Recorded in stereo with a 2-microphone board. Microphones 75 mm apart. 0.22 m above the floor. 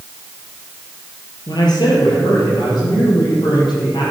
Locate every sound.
1.5 s a man speaking: 65° left (ahead or behind), 4.5 m; by 4.1 s 75° left (ahead or behind), 7 m